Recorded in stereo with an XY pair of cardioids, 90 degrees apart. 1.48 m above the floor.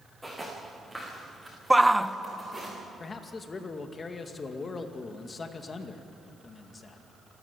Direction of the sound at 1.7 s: 5° right.